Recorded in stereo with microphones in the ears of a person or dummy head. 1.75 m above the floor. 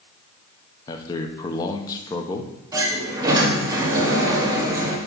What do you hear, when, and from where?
0.9 s a man speaking: 25° left (ahead or behind), 0.9 m
2.7 s a sliding door: 20° right (ahead or behind), 1.5 m